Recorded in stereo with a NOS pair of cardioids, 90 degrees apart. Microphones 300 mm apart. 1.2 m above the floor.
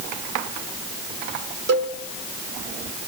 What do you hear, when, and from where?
1.7 s a cowbell: 60° right, 2.0 m